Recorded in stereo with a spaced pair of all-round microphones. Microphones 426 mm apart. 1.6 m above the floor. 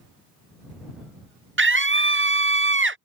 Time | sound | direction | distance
1.6 | a scream | 30° right (ahead or behind) | ?